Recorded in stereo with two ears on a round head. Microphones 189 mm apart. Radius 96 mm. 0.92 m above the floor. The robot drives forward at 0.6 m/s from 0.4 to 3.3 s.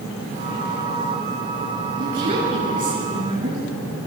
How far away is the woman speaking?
About 9.5 m.